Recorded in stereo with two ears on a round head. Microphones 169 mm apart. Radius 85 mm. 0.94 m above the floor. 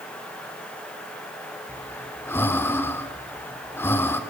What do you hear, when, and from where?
1.7 s breathing: 15° left (ahead or behind), 1.4 m